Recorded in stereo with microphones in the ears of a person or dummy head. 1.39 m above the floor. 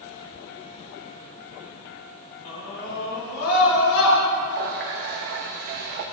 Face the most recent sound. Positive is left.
turn(degrees=-50)  # may be behind; listen again after turning